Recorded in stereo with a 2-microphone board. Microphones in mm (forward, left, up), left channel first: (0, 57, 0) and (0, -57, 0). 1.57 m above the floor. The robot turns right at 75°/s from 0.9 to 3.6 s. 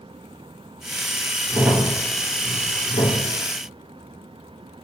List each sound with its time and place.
1.5 s a crack: 40° right (ahead or behind), 4.5 m; by 3.2 s 85° left, 4.5 m